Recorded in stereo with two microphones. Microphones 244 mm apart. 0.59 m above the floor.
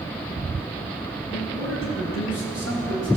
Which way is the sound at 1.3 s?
65° left (ahead or behind).